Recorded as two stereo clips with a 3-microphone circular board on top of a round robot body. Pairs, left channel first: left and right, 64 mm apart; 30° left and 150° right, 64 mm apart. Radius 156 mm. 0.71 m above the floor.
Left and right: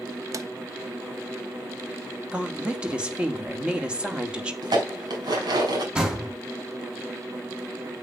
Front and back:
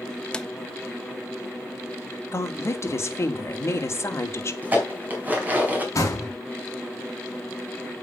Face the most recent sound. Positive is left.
turn(degrees=-10)